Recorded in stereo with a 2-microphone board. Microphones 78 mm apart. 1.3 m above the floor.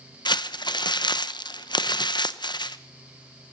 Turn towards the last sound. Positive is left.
turn(degrees=85)